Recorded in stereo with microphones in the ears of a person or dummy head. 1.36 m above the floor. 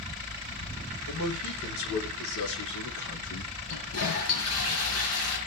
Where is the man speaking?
70° left (ahead or behind), 5 m; by 3.5 s 55° left (ahead or behind), 1.8 m.